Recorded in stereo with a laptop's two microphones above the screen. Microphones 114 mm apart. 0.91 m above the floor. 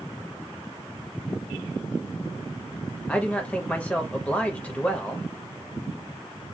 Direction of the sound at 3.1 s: 15° left (ahead or behind).